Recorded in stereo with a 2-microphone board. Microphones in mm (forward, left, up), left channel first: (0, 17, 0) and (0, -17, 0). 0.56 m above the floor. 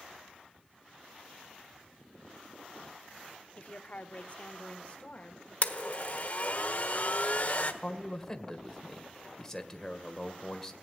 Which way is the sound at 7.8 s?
15° left (ahead or behind).